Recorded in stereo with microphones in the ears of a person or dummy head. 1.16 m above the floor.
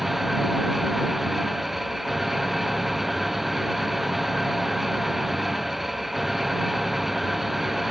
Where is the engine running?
Centre (ahead or behind).